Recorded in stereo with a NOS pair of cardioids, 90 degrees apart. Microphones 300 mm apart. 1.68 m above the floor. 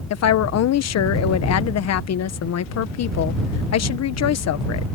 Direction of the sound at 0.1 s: 60° left.